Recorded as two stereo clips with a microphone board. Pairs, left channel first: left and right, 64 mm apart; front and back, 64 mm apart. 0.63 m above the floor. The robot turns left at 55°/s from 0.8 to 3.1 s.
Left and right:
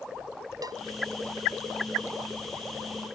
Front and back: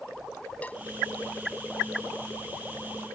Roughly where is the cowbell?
Ahead right.